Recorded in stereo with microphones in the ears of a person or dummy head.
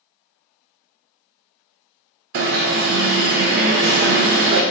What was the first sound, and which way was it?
An alarm, 45° right (ahead or behind).